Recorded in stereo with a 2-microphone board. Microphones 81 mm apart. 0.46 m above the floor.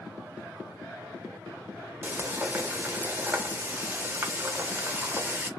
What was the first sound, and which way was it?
Frying, 20° right (ahead or behind).